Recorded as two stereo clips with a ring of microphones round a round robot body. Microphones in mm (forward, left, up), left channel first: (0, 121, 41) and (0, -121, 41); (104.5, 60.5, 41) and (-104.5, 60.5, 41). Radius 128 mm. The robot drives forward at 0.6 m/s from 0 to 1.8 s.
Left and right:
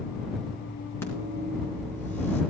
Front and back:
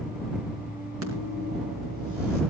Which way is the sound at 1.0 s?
170° left.